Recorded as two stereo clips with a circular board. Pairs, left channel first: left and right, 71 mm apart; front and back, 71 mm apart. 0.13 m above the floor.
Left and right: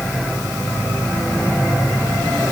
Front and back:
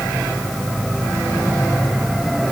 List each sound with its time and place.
Only background noise.